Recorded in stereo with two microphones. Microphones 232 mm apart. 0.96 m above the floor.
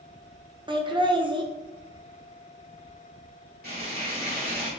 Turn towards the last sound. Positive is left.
turn(degrees=-45)  # may be behind; listen again after turning